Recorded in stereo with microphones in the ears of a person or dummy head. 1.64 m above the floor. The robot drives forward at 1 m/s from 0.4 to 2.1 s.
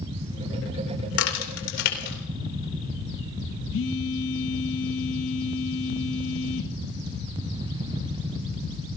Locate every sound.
1.1 s a crack: 85° left, 3 m; by 2.2 s 65° left (ahead or behind), 3 m
3.7 s a phone buzzing: 70° left (ahead or behind), 1.2 m